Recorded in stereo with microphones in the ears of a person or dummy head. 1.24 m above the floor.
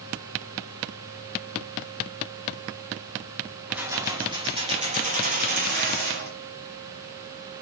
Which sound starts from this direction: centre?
Keys jangling, at 3.7 s.